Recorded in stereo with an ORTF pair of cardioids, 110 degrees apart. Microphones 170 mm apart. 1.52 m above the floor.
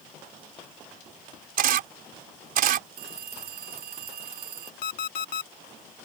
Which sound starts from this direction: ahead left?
An alarm clock, at 4.8 s.